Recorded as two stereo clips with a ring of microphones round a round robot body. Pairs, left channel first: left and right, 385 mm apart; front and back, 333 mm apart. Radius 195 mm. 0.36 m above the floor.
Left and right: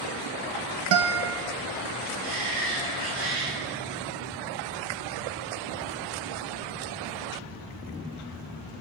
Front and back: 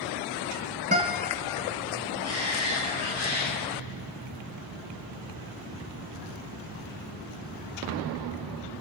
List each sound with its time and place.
0.9 s a guitar: 115° right, 1.5 m
2.2 s a shout: 125° right, 7.5 m